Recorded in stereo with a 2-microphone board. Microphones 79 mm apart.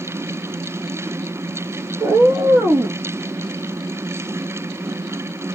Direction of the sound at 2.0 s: 60° right (ahead or behind).